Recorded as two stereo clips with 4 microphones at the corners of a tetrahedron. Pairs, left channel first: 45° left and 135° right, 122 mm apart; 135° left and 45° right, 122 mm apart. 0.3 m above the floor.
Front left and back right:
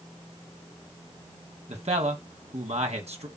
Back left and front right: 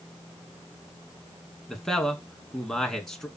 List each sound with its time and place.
1.7 s a man speaking: 140° right, 2.5 m